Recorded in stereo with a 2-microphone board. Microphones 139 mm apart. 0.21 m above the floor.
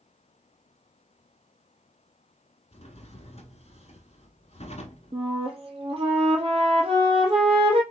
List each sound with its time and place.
2.7 s a drawer: 50° left (ahead or behind), 1.0 m
5.1 s a flute: 45° right (ahead or behind), 1.1 m